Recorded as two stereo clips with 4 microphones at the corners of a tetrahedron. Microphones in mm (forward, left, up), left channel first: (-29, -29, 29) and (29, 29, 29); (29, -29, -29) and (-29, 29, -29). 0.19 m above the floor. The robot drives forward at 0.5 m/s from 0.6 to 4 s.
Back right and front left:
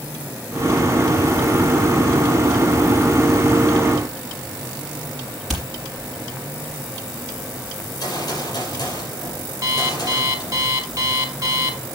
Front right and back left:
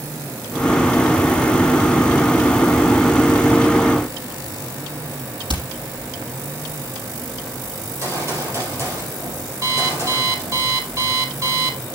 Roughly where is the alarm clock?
Left.